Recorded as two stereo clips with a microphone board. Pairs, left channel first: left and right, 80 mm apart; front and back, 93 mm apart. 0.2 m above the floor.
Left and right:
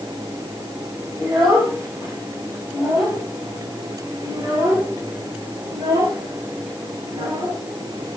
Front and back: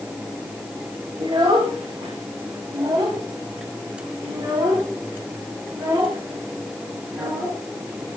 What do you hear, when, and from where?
1.2 s a child speaking: 155° right, 7.5 m; by 8.2 s 110° right, 7 m